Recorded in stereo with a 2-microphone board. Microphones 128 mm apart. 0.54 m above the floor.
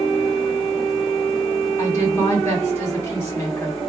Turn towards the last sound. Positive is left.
turn(degrees=20)  # may be behind; listen again after turning